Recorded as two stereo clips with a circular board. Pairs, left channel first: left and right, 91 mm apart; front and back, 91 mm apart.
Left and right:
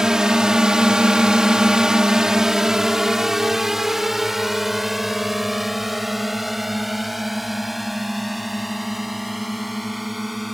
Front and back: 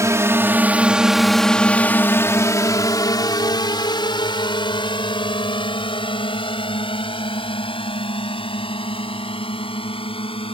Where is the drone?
170° right; by 10.5 s straight ahead.